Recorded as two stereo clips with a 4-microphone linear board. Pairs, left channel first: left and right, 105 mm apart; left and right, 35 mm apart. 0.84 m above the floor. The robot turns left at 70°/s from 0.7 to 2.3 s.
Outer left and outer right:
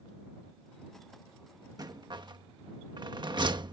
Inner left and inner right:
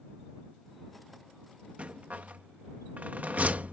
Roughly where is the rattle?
Right.